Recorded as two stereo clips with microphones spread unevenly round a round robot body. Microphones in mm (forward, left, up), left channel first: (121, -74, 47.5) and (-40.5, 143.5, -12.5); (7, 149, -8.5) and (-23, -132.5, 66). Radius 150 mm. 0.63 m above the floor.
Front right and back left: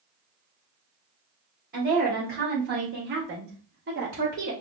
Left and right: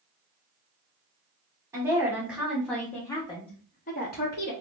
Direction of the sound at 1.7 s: 175° left.